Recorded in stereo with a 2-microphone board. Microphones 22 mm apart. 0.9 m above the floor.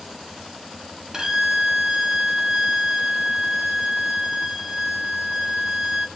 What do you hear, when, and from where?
1.1 s a violin: 30° right (ahead or behind), 0.6 m